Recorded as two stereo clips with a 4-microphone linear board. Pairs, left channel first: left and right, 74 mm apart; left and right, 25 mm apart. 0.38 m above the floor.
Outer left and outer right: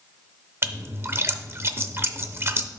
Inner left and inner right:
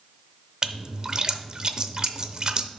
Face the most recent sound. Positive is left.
turn(degrees=-35)  # may be behind; listen again after turning